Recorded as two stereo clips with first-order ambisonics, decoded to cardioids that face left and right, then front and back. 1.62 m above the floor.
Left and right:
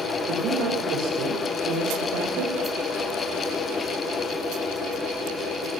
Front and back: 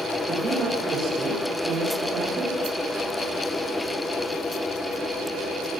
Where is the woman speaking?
115° right, 7.5 m; by 2.5 s 120° right, 8.5 m.